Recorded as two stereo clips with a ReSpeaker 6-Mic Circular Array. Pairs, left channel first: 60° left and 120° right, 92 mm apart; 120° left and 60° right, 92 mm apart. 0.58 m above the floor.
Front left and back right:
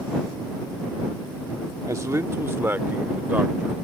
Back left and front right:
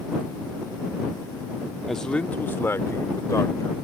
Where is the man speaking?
150° right; by 3.8 s 170° left.